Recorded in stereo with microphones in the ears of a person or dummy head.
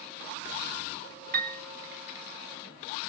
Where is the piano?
50° right (ahead or behind), 1.7 m.